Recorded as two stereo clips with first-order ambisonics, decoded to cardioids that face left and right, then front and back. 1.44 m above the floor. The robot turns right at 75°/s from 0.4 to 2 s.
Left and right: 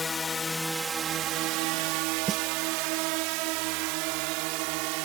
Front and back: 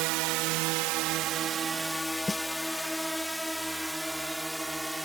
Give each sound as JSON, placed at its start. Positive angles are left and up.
{"t": 0.0, "sound": "a drone", "azimuth_deg": 165}
{"t": 2.3, "sound": "a snare drum", "azimuth_deg": -60}